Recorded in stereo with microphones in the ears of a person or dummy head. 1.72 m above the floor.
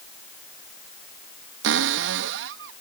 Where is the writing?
No writing in this recording.